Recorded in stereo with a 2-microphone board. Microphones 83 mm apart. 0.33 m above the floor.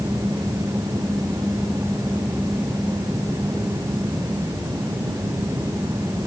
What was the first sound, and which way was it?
Only background noise.